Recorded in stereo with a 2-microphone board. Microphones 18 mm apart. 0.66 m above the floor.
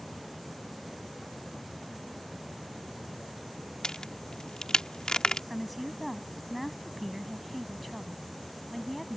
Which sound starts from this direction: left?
A crack, at 3.8 s.